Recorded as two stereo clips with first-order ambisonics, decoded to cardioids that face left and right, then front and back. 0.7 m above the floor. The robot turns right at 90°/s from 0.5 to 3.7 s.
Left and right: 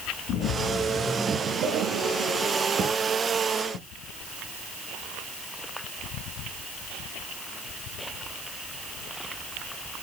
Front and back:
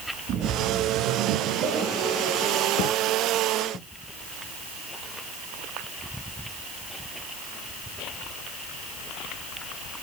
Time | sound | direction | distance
0.3 | a splash | 130° left | 1.6 m